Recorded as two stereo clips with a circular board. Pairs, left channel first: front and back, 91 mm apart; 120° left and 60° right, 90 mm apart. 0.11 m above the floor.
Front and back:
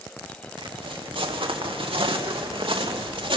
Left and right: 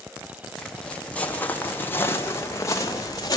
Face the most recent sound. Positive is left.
turn(degrees=165)